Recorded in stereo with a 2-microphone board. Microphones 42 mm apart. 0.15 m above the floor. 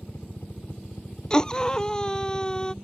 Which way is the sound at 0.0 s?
65° left (ahead or behind).